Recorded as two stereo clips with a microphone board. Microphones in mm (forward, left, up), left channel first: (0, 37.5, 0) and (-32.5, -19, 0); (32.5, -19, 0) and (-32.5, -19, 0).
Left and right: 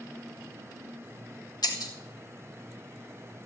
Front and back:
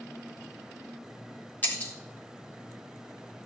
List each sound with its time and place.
1.6 s breaking glass: 60° left, 3 m